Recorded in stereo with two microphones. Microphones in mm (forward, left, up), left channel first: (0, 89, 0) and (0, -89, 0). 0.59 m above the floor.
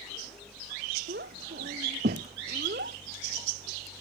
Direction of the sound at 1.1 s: 85° right.